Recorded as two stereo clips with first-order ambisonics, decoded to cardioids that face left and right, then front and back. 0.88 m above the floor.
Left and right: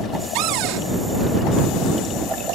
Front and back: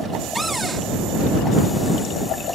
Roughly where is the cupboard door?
Right.